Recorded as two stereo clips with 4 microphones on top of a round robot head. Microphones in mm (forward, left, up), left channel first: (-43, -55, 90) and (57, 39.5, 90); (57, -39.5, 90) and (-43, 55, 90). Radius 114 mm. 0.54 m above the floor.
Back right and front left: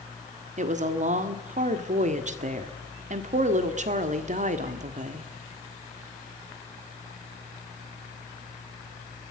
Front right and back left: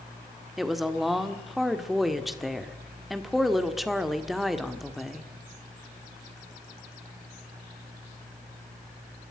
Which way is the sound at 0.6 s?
50° left.